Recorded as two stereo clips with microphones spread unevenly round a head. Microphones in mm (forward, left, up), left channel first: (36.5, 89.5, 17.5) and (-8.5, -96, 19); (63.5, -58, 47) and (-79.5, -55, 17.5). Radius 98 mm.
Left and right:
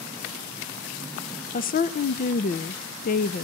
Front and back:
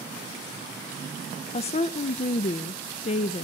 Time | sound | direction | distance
1.5 | a woman speaking | 45° left | 0.5 m